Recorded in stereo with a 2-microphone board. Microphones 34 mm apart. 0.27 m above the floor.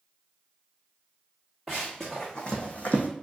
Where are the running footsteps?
10° left (ahead or behind), 1.3 m; by 3.1 s 60° left (ahead or behind), 0.8 m.